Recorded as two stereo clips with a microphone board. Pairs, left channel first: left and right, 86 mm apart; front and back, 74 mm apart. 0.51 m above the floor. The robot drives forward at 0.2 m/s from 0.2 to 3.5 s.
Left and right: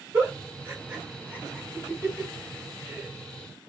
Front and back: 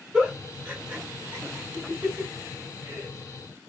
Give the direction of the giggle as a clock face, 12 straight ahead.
4 o'clock.